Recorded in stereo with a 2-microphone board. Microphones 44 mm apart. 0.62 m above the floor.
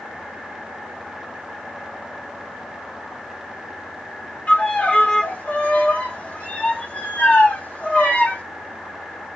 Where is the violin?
35° left (ahead or behind), 1.1 m.